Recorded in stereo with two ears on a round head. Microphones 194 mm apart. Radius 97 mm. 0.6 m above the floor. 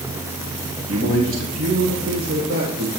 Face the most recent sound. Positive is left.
turn(degrees=-60)  # may be behind; listen again after turning